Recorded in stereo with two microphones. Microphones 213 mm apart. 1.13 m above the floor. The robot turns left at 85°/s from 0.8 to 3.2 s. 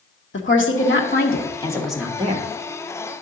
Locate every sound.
0.3 s a woman speaking: 95° left, 1.2 m; by 2.5 s 50° right, 1.2 m